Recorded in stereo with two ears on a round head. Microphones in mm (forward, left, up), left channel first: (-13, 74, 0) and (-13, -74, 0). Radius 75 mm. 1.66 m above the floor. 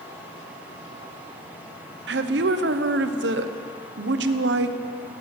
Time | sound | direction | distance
2.1 | a woman speaking | 70° right (ahead or behind) | 0.8 m